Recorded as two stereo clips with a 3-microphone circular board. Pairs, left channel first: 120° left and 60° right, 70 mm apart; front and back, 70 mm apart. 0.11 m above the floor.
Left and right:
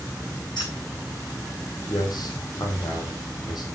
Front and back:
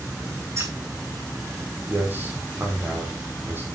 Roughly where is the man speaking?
Behind left.